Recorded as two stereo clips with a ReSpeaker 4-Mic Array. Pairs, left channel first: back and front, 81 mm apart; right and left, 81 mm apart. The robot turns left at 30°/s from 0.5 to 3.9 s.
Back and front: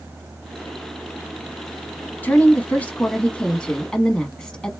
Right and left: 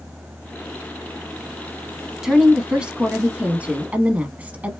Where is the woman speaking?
165° left, 1.0 m; by 4.7 s 115° left, 1.0 m.